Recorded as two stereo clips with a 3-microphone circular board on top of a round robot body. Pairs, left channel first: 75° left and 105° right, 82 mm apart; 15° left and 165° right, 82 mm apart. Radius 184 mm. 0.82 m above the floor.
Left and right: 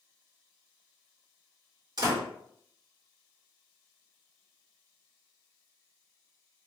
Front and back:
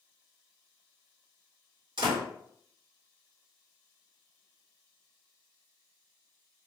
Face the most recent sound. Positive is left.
turn(degrees=-145)